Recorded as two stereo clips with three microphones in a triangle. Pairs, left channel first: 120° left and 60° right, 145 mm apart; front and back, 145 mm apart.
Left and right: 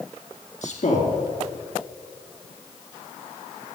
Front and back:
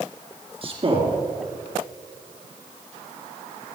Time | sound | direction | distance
0.6 | a man speaking | 135° left | 3 m